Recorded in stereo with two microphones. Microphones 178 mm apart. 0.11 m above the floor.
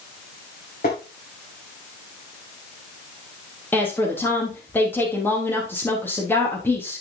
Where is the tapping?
65° left (ahead or behind), 5.5 m.